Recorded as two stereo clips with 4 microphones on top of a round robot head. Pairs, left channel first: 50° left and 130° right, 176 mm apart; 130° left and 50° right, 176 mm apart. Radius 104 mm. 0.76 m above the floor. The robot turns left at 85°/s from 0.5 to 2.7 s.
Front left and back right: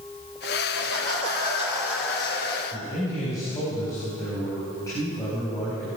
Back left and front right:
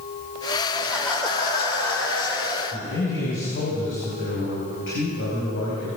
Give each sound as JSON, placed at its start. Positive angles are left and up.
{"t": 0.7, "sound": "laughter", "azimuth_deg": -115, "distance_m": 5.0}
{"t": 2.7, "sound": "a man speaking", "azimuth_deg": 125, "distance_m": 4.5}